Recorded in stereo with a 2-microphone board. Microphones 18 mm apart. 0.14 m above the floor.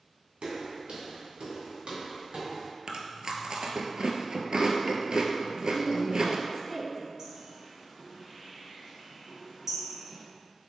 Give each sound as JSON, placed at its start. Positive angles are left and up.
{"t": 0.4, "sound": "footsteps", "side_deg": -80, "distance_m": 1.9}
{"t": 2.9, "sound": "chewing", "side_deg": -50, "distance_m": 0.6}
{"t": 5.5, "sound": "a woman speaking", "side_deg": 20, "distance_m": 1.0}
{"t": 7.2, "sound": "a bird", "side_deg": -30, "distance_m": 1.4}